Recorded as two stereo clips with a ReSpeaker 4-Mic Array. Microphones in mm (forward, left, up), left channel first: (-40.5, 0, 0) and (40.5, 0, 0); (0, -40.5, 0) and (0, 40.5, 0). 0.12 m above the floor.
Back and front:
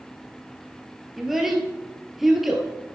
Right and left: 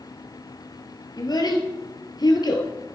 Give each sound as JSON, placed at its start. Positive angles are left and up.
{"t": 1.2, "sound": "a child speaking", "azimuth_deg": -85, "distance_m": 2.0}